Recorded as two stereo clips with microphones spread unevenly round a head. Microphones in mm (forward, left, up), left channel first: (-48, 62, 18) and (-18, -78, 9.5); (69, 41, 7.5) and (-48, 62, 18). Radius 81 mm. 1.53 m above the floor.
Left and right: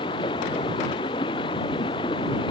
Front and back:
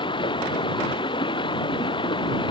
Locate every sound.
0.0 s running water: 40° left